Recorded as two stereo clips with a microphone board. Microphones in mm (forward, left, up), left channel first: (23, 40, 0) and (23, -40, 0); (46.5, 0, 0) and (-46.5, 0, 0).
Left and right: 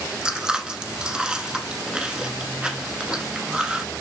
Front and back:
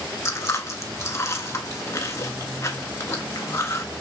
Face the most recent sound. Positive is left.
turn(degrees=-20)